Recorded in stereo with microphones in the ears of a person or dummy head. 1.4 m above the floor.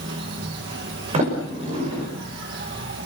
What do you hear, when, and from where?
0.0 s an insect: 65° right (ahead or behind), 5 m
1.1 s a sliding door: 35° right (ahead or behind), 6 m